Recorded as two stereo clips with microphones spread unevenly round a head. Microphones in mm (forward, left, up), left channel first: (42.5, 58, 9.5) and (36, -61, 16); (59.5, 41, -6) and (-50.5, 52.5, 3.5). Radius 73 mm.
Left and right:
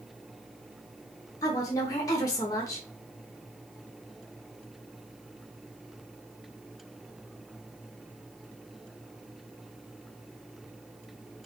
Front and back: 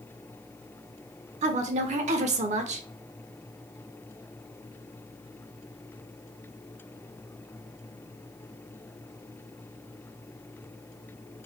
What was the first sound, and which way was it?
A woman speaking, 155° left.